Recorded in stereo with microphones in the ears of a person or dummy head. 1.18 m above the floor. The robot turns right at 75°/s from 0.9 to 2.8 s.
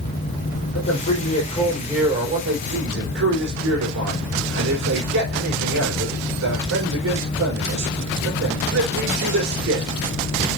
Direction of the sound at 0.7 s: 110° left.